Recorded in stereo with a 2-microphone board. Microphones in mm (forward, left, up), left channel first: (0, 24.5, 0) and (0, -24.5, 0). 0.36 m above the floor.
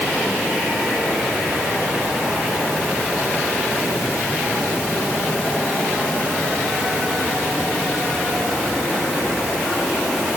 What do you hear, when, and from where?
Only background noise.